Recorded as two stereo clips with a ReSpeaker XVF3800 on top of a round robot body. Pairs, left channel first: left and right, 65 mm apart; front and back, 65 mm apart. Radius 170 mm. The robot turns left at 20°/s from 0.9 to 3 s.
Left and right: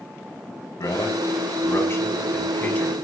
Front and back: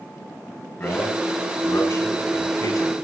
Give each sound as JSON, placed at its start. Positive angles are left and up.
{"t": 0.8, "sound": "a man speaking", "azimuth_deg": 60, "distance_m": 7.0}